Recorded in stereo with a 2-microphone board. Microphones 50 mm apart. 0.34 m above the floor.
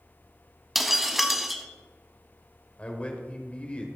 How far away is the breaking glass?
About 0.8 m.